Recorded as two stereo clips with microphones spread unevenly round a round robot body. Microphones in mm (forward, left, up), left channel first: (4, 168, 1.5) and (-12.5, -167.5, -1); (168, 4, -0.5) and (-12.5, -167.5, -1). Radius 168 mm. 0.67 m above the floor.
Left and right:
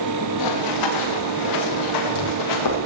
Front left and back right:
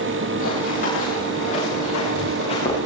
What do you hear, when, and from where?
0.4 s running footsteps: 110° left, 9.5 m; by 2.8 s 120° left, 9 m